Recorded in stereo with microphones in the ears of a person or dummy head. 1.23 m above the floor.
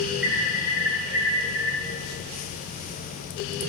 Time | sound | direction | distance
0.2 | an alarm | 10° right (ahead or behind) | 3.5 m